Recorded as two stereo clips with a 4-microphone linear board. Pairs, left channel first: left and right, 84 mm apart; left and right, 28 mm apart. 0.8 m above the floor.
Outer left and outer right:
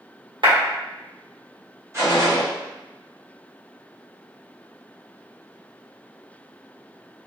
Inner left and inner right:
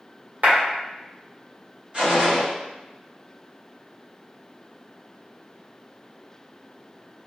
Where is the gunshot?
35° right (ahead or behind), 1.5 m.